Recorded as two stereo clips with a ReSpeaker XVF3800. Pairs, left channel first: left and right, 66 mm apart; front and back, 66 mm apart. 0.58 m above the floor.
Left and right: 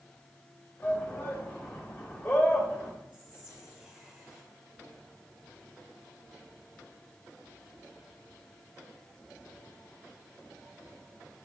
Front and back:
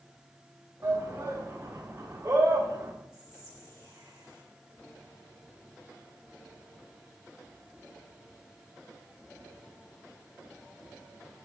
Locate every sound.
0.8 s a shout: 150° left, 1.2 m
3.1 s whispering: 165° right, 2 m